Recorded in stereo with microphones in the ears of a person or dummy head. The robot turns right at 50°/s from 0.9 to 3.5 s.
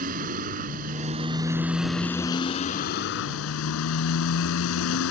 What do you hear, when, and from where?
0.0 s a motorcycle: 40° right; by 5.1 s 90° left